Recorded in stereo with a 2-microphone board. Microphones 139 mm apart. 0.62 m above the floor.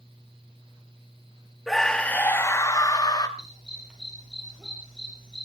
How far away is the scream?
About 1.0 m.